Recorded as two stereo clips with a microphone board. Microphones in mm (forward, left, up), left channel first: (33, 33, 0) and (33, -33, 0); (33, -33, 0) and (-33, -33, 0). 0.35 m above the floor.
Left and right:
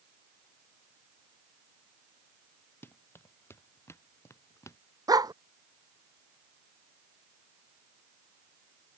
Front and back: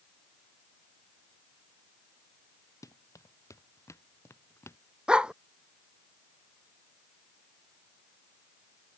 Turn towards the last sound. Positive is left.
turn(degrees=-105)